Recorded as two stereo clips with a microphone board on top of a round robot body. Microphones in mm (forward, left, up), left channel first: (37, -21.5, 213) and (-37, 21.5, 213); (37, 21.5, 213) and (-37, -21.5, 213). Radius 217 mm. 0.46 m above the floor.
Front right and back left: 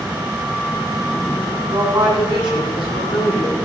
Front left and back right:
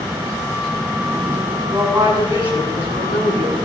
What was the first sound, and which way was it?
A woman speaking, 145° left.